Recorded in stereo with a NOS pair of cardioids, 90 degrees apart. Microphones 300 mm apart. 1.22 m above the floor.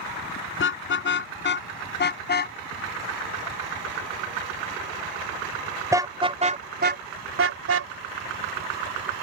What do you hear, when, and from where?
0.6 s a car horn: 40° left; by 7.9 s 55° right